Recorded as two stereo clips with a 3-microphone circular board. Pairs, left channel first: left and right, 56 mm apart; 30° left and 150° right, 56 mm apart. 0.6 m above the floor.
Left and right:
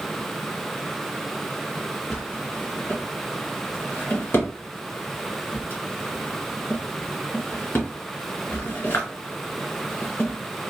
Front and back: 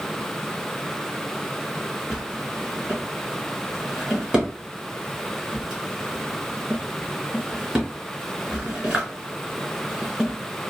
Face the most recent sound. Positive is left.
turn(degrees=135)